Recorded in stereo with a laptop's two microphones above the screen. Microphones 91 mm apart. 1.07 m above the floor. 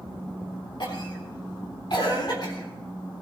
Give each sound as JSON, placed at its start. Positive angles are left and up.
{"t": 0.8, "sound": "a cough", "side_deg": 55, "distance_m": 3.5}